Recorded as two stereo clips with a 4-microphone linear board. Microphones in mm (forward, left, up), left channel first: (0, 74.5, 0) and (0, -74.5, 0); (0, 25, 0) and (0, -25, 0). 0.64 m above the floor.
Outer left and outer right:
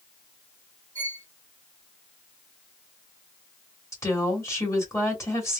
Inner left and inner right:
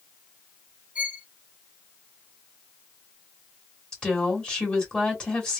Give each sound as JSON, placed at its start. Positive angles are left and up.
{"t": 0.9, "sound": "a violin", "side_deg": -25, "distance_m": 1.1}
{"t": 3.9, "sound": "a woman speaking", "side_deg": 20, "distance_m": 2.0}